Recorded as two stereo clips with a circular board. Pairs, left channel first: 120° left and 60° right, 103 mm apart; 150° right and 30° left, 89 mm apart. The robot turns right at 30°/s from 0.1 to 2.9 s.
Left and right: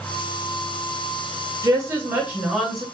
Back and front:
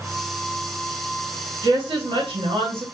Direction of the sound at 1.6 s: 5° right.